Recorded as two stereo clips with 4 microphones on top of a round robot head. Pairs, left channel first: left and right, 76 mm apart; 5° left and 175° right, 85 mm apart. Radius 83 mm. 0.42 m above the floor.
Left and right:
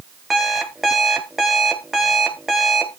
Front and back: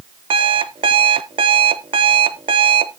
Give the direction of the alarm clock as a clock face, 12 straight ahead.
6 o'clock.